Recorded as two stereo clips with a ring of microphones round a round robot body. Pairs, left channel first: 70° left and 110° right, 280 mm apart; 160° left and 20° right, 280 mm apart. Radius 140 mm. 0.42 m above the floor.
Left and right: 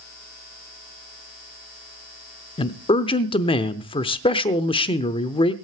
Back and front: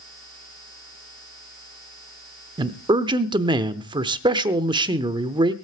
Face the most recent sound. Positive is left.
turn(degrees=25)